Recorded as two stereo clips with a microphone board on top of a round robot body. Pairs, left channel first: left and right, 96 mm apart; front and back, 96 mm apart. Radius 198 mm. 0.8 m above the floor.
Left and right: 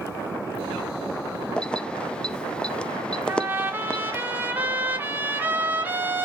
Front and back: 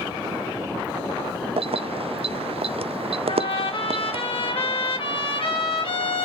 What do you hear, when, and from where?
1.6 s keys jangling: 170° left, 1.0 m
3.3 s a trumpet: 20° right, 3.5 m